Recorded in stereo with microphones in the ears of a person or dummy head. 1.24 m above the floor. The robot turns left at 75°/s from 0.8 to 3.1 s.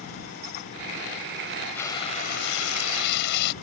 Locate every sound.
1.8 s frying: 175° left; by 3.5 s 75° left